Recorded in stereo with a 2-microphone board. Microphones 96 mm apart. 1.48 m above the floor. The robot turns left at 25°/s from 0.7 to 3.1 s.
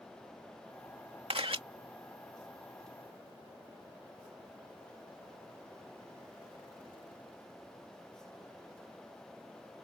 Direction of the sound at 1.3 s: 70° right (ahead or behind).